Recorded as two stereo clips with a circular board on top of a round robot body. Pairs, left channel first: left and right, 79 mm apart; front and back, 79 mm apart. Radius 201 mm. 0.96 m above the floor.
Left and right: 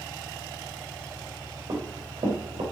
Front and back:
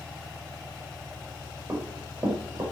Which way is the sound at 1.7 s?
120° right.